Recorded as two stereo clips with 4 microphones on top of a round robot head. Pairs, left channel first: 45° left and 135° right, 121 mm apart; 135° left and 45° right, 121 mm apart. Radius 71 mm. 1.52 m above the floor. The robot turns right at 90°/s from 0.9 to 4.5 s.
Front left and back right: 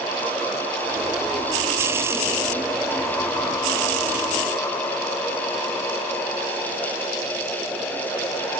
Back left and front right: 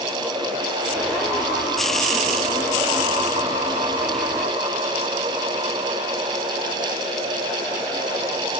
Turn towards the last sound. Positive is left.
No sound to turn to.